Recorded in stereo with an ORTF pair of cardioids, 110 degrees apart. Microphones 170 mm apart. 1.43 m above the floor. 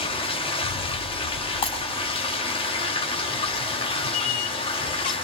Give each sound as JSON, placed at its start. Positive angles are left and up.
{"t": 0.0, "sound": "running water", "azimuth_deg": 35, "distance_m": 3.0}
{"t": 1.6, "sound": "breaking glass", "azimuth_deg": 35, "distance_m": 4.5}
{"t": 4.1, "sound": "a squeak", "azimuth_deg": 55, "distance_m": 1.3}